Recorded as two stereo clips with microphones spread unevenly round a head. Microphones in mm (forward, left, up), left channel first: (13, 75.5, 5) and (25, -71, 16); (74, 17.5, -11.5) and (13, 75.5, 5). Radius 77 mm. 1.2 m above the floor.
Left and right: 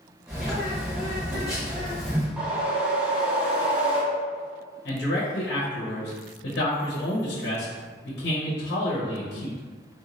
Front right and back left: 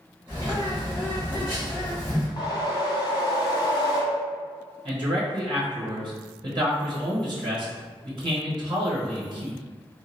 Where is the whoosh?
10° right, 1.1 m.